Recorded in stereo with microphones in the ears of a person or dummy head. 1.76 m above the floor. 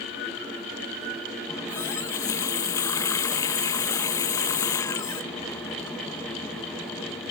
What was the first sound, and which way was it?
A running tap, 15° left (ahead or behind).